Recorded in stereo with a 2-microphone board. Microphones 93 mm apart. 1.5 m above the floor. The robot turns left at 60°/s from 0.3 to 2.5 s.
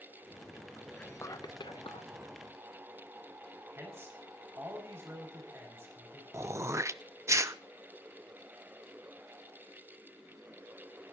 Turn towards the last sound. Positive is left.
turn(degrees=-30)  # may be behind; listen again after turning